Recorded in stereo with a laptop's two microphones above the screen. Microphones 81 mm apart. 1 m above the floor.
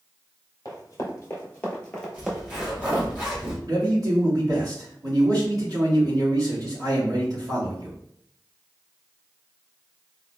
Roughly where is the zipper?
Centre.